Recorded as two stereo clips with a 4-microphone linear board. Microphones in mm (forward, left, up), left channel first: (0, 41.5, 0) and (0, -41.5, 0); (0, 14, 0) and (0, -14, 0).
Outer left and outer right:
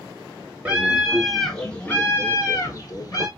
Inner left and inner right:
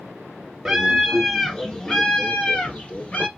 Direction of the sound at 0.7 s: 15° right (ahead or behind).